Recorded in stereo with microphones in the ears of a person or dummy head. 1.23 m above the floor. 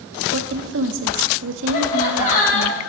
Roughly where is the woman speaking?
Right.